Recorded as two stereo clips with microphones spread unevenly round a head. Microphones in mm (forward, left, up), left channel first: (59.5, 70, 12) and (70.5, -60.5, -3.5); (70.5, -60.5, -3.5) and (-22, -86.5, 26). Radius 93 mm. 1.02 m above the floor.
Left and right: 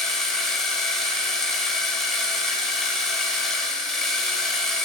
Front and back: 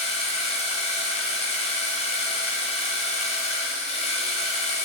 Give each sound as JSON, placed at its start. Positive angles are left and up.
{"t": 0.0, "sound": "a machine running", "azimuth_deg": 10, "distance_m": 1.4}